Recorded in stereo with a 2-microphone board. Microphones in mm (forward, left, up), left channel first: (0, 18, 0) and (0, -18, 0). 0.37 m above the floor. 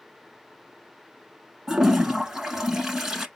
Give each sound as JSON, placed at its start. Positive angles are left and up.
{"t": 1.7, "sound": "a toilet flushing", "side_deg": -10, "distance_m": 0.8}